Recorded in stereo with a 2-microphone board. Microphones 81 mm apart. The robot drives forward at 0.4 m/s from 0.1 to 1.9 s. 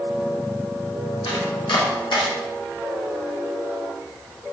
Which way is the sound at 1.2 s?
75° left (ahead or behind).